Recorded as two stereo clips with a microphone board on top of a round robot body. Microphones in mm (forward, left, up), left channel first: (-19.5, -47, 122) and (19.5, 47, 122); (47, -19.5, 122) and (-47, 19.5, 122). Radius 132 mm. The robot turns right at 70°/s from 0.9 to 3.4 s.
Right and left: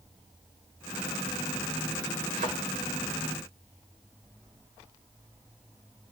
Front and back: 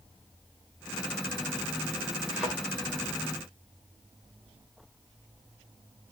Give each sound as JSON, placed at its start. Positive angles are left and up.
{"t": 2.3, "sound": "a thud", "azimuth_deg": 65, "distance_m": 3.5}